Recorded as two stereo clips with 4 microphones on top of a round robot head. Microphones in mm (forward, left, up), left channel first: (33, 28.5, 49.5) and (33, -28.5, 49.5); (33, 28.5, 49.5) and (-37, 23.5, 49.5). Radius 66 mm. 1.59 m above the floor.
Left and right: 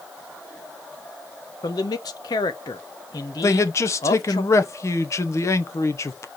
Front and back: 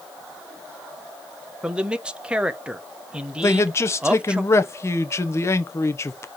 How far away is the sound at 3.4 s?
About 1.2 m.